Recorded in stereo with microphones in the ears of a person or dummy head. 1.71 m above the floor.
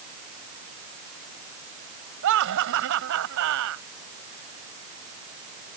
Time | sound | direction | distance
2.2 | laughter | 70° right (ahead or behind) | ?